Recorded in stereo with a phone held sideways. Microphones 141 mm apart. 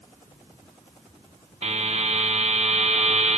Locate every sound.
1.6 s a buzzer: 55° right (ahead or behind), 0.8 m